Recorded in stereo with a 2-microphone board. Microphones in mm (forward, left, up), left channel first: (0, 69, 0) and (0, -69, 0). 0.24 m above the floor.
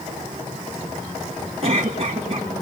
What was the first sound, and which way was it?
A cough, 45° right (ahead or behind).